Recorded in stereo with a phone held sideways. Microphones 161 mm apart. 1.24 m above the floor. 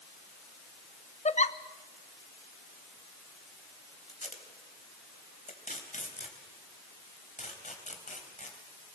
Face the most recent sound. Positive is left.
turn(degrees=50)  # may be behind; listen again after turning